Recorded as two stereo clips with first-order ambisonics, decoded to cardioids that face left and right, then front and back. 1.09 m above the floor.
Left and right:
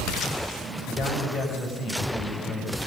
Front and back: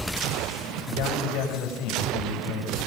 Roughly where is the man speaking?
Ahead left.